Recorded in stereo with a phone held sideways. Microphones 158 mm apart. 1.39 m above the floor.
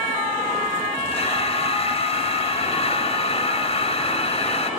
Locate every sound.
1.1 s breathing: 40° left (ahead or behind)